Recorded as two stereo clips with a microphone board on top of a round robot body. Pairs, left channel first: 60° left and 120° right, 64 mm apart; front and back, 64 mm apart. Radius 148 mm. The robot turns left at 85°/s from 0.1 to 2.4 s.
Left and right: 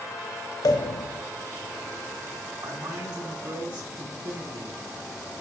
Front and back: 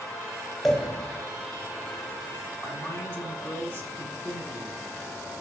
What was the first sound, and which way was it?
A pop, 90° left.